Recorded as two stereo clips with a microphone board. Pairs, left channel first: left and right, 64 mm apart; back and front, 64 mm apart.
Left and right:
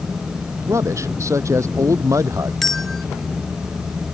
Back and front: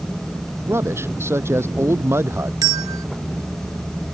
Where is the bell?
5° left.